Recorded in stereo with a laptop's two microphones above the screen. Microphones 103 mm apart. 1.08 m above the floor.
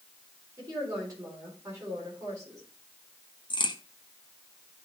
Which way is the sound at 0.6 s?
30° right (ahead or behind).